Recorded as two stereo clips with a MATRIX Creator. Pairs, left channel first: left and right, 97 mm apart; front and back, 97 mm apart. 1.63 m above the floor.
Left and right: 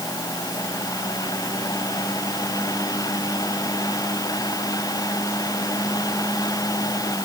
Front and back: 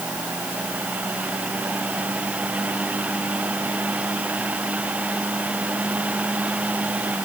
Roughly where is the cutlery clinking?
No cutlery clinking in this recording.